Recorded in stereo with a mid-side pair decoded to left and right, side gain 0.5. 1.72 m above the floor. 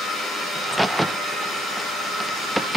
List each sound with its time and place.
0.6 s a crack: 5° right, 0.7 m